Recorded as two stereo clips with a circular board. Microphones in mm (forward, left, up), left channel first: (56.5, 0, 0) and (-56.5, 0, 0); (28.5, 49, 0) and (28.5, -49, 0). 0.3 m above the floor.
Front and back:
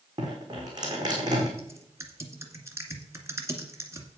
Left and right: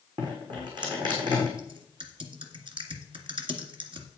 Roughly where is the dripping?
Behind right.